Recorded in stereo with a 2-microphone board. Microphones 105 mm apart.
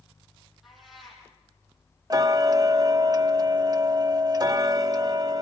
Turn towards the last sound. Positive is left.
turn(degrees=-40)  # may be behind; listen again after turning